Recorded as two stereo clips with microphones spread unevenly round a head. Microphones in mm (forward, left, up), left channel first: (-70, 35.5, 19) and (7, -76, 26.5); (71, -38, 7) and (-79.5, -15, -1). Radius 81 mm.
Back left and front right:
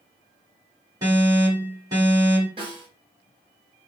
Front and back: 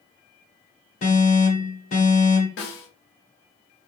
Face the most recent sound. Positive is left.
turn(degrees=5)